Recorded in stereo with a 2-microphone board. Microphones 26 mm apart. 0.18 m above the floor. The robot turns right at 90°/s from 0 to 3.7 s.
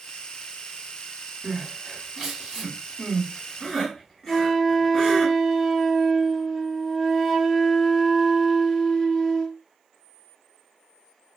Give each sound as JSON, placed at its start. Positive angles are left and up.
{"t": 1.4, "sound": "crying", "side_deg": -25, "distance_m": 1.7}
{"t": 4.3, "sound": "a flute", "side_deg": 30, "distance_m": 2.5}